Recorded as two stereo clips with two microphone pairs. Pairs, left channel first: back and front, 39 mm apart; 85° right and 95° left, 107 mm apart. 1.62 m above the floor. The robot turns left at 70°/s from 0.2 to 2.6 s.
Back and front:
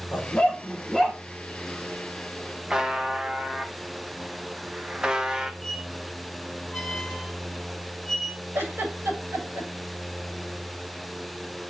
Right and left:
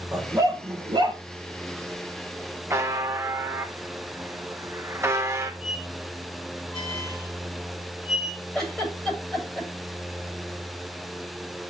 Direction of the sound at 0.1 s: 150° left.